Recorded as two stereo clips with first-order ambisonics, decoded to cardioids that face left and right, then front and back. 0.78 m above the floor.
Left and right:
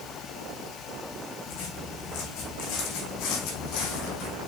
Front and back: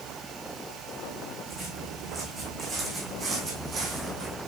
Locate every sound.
1.5 s footsteps: 100° left, 4 m; by 4.4 s 115° left, 2 m